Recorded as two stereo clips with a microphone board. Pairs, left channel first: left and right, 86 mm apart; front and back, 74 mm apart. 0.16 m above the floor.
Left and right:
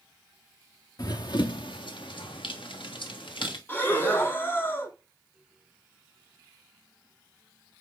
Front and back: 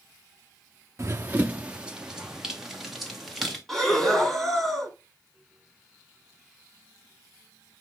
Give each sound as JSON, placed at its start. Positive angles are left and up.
{"t": 1.0, "sound": "running footsteps", "azimuth_deg": 125, "distance_m": 0.6}
{"t": 3.7, "sound": "breathing", "azimuth_deg": 80, "distance_m": 1.3}